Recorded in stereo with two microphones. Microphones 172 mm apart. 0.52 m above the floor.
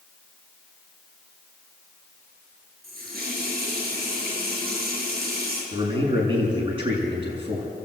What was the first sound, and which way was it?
A running tap, 65° right (ahead or behind).